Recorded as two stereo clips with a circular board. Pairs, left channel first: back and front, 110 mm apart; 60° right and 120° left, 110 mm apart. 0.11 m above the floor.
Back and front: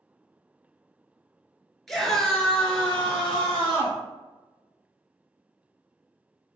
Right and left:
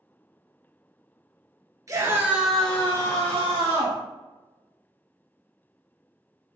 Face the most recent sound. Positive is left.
turn(degrees=-95)